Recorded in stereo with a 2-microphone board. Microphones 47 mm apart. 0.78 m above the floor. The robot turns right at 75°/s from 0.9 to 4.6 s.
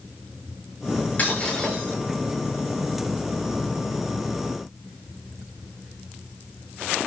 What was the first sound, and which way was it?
Breaking glass, 145° left.